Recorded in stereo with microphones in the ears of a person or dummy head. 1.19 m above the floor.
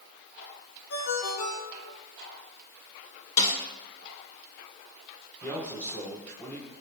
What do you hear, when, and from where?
0.9 s a ringtone: 75° left (ahead or behind), 3.5 m
3.4 s a snare drum: 35° left (ahead or behind), 2 m
5.4 s a man speaking: 15° left (ahead or behind), 3.5 m